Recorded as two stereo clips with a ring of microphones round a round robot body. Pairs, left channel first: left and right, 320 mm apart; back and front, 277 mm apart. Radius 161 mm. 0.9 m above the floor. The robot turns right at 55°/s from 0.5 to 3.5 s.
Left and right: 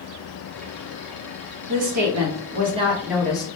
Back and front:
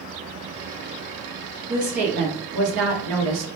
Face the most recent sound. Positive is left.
turn(degrees=20)